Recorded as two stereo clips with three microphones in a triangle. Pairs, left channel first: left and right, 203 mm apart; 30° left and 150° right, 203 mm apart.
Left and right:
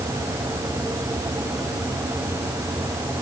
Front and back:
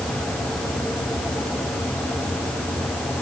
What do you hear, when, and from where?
Only background noise.